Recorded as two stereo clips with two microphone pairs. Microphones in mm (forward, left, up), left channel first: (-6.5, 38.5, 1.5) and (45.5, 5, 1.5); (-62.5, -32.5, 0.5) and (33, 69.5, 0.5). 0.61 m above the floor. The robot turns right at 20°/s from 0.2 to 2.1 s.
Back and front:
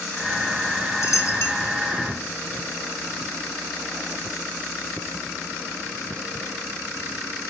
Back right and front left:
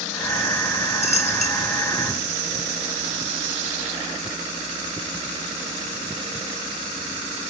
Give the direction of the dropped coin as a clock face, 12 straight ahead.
6 o'clock.